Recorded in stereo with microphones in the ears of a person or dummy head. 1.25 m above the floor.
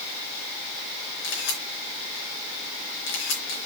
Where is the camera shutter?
75° left (ahead or behind), 3.5 m.